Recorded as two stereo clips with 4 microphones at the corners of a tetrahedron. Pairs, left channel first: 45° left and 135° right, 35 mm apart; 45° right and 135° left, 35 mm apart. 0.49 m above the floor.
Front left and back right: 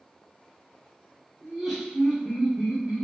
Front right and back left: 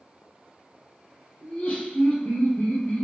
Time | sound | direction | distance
1.4 | laughter | 50° right | 1.9 m